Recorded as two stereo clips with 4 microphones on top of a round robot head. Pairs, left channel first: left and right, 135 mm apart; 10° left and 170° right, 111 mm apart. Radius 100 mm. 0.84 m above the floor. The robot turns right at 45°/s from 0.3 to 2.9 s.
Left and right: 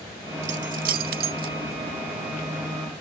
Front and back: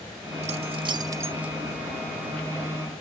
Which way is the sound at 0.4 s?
135° right.